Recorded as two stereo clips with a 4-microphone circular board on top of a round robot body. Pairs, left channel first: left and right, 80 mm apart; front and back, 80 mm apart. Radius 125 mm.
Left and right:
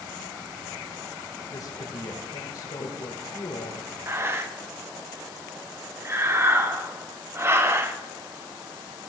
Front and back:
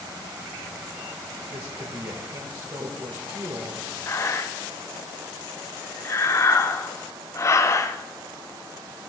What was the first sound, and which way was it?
A woman speaking, 135° left.